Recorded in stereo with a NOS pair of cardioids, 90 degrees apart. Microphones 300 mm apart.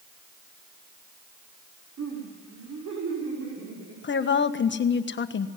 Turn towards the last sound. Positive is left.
turn(degrees=40)